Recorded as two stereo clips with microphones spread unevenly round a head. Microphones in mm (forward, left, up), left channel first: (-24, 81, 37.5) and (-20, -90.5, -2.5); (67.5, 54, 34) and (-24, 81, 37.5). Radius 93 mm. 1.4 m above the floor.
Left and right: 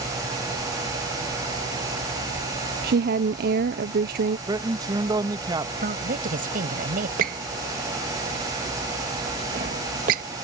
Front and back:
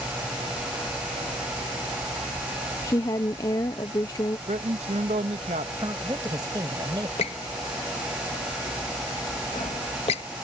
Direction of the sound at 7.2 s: 40° right.